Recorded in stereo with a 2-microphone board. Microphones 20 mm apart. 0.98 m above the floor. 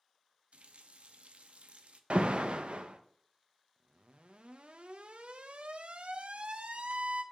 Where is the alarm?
55° right (ahead or behind), 0.6 m.